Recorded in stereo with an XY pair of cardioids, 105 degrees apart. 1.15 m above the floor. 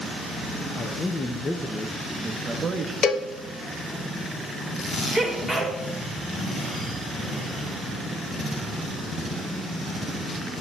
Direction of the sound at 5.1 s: 10° left.